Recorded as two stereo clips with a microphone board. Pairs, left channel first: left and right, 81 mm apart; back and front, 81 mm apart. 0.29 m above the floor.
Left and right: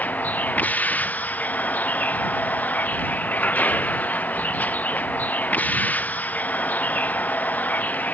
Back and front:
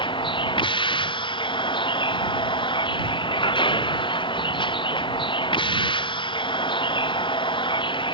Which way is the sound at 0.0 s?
165° left.